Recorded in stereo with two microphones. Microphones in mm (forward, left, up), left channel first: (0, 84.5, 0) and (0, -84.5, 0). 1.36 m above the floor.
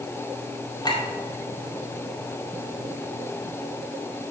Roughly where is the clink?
Left.